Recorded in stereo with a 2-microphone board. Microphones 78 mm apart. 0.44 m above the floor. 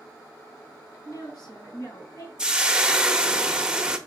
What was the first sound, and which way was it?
A woman speaking, 55° left (ahead or behind).